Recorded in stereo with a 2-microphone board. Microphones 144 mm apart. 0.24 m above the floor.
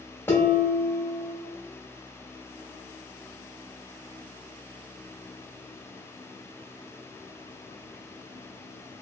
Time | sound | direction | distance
0.3 | dishes clattering | 15° left (ahead or behind) | 0.6 m